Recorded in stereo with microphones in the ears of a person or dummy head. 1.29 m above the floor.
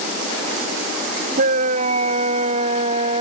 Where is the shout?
60° right (ahead or behind); by 3.2 s 45° right (ahead or behind).